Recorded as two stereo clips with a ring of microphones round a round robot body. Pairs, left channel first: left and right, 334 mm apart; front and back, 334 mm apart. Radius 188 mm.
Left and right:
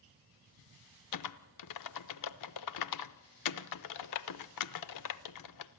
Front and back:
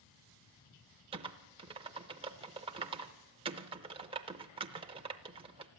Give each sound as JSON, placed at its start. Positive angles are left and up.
{"t": 1.1, "sound": "typing on a keyboard", "azimuth_deg": 105, "distance_m": 0.5}